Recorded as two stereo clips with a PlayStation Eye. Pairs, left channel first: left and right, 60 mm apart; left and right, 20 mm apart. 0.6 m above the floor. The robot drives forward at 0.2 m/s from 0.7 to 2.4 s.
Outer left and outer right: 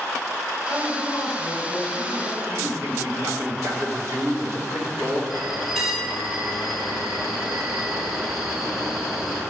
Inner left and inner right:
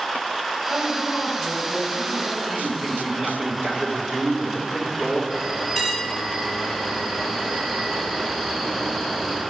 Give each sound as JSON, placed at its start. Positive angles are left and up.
{"t": 0.7, "sound": "a woman speaking", "side_deg": 15, "distance_m": 3.0}
{"t": 2.4, "sound": "a man speaking", "side_deg": -35, "distance_m": 2.5}
{"t": 5.3, "sound": "a bell", "side_deg": -5, "distance_m": 2.0}